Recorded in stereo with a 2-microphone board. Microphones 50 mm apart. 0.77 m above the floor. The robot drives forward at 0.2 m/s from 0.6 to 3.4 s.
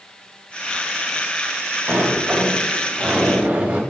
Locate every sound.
1.9 s a sliding door: 30° right (ahead or behind), 1.5 m; by 3.8 s 25° right (ahead or behind), 1.8 m